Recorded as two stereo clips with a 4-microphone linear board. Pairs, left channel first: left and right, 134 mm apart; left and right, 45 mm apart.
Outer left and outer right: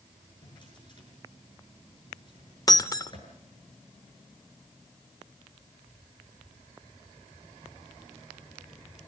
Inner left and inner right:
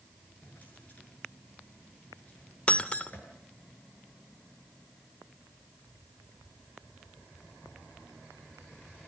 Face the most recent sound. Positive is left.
turn(degrees=25)  # may be behind; listen again after turning